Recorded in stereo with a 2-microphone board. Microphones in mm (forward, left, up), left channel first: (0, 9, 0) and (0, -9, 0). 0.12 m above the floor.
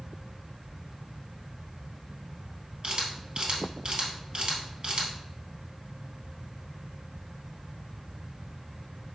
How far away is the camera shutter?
About 2.5 m.